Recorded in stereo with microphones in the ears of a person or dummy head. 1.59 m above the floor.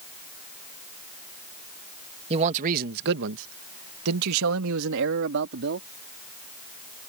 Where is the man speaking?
30° right (ahead or behind); by 5.9 s 60° right (ahead or behind).